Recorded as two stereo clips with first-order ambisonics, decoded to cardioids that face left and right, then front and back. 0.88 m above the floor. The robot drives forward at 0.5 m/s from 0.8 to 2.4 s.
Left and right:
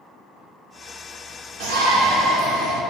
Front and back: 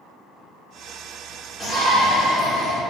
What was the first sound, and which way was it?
A shout, 105° right.